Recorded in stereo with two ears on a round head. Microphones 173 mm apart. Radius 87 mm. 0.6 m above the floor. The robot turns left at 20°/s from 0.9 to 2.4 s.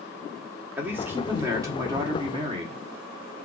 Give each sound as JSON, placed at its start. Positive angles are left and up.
{"t": 0.8, "sound": "a man speaking", "azimuth_deg": -15, "distance_m": 1.1}